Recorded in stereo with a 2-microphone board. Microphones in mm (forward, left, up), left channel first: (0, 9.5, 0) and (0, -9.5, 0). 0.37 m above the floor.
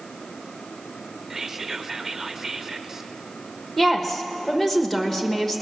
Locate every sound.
1.3 s whispering: 20° right (ahead or behind), 0.8 m
3.8 s a woman speaking: 15° left (ahead or behind), 1.3 m